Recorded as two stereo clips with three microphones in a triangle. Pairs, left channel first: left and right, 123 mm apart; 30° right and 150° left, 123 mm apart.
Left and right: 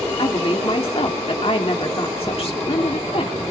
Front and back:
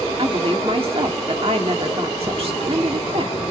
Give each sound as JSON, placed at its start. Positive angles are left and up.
{"t": 0.2, "sound": "a woman speaking", "azimuth_deg": 120, "distance_m": 1.8}